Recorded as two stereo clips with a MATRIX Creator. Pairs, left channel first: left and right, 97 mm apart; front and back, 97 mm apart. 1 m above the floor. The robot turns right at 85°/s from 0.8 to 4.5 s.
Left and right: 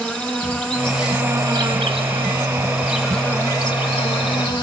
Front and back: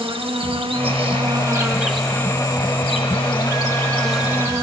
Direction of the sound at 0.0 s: 165° left.